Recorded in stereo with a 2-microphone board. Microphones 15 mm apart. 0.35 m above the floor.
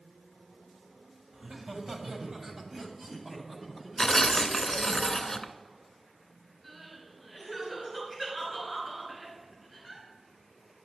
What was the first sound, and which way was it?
Laughter, 55° right (ahead or behind).